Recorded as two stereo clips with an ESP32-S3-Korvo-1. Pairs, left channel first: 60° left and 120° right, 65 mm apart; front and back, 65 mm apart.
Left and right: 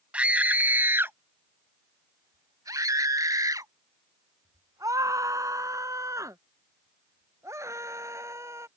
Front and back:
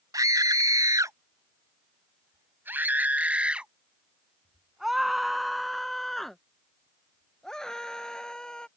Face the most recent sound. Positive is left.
turn(degrees=-80)